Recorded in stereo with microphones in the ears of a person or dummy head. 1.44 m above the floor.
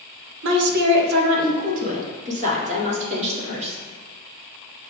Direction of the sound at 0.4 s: 55° right (ahead or behind).